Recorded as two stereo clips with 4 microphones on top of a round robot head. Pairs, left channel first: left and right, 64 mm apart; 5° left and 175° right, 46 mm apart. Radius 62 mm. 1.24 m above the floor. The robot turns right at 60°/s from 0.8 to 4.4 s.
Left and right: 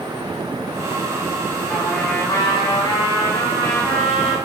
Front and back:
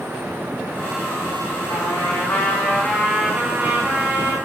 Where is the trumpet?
10° left, 3.5 m; by 4.4 s 170° left, 3.5 m.